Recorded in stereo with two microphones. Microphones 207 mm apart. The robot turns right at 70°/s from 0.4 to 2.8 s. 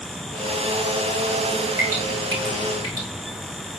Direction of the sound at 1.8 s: 30° left (ahead or behind).